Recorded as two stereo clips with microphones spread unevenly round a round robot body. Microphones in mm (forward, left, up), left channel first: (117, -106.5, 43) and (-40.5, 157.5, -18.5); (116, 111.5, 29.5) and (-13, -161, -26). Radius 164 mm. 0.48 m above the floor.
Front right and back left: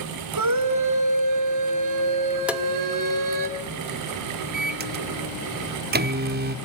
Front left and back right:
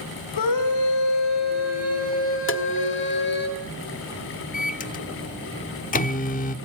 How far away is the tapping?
About 1.4 m.